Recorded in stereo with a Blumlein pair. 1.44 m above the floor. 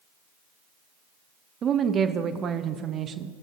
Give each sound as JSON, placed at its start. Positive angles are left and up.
{"t": 1.6, "sound": "a woman speaking", "azimuth_deg": -25, "distance_m": 0.6}